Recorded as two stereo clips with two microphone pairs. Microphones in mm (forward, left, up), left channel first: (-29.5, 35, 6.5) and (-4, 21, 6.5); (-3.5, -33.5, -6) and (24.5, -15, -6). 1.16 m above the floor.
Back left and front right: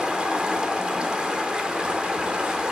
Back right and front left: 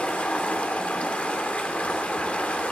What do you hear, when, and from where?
0.0 s running water: 95° right, 3 m